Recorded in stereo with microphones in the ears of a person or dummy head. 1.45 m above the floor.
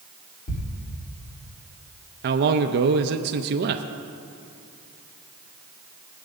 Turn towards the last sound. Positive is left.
turn(degrees=-55)  # may be behind; listen again after turning